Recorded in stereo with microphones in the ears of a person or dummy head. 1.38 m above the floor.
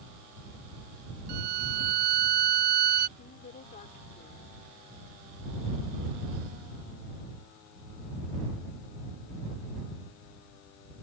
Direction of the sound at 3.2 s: 40° left (ahead or behind).